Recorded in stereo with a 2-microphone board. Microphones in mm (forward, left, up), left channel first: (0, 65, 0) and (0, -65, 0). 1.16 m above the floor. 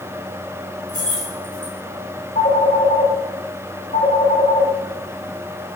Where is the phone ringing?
90° left, 9.5 m.